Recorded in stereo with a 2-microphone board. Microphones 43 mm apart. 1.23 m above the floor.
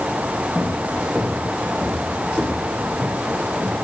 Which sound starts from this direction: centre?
Footsteps, at 0.6 s.